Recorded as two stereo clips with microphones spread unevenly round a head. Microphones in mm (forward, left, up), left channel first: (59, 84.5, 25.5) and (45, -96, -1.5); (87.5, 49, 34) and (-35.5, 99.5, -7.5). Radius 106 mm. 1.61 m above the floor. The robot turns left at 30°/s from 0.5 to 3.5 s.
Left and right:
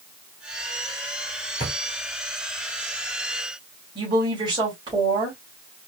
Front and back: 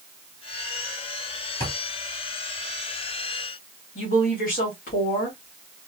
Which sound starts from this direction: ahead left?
A drawer, at 1.6 s.